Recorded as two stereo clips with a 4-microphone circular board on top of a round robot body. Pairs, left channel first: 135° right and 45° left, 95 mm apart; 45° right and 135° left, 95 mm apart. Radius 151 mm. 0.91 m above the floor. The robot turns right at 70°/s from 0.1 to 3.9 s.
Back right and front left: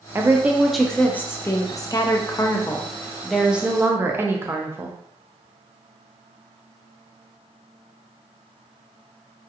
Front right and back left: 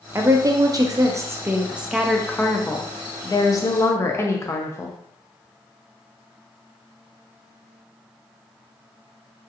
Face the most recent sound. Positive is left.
turn(degrees=-5)